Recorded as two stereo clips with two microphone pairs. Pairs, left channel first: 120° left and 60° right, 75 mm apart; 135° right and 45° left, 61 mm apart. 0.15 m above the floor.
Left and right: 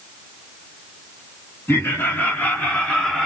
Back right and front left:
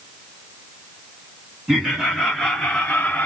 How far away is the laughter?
About 1.7 m.